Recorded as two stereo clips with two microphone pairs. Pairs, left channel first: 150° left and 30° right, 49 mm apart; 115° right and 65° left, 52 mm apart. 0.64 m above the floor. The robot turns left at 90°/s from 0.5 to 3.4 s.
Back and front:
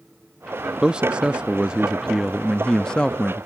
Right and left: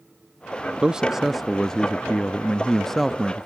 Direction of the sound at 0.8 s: 15° left.